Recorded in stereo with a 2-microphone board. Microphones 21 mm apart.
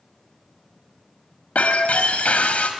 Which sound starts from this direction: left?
Breaking glass, at 1.6 s.